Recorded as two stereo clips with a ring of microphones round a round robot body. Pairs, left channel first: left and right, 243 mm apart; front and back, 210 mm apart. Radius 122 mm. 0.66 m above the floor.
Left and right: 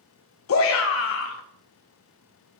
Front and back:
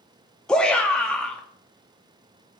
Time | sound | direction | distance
0.5 | a shout | 85° left | 0.7 m